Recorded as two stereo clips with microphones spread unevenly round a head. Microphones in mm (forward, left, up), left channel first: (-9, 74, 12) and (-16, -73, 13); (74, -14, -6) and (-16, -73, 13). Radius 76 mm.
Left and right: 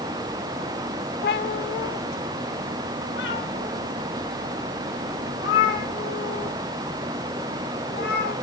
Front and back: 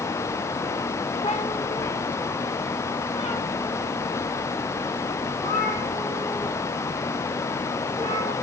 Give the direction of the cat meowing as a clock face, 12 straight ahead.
9 o'clock.